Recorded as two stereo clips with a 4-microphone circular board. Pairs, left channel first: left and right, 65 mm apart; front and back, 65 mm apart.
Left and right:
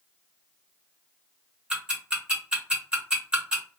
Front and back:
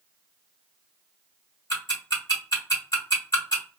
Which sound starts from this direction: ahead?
Ticking, at 1.7 s.